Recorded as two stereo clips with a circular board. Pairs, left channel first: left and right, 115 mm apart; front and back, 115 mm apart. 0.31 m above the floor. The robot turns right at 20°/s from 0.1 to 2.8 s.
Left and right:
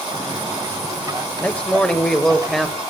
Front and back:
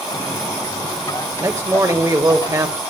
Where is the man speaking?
155° left, 1.0 m; by 2.8 s straight behind, 1.0 m.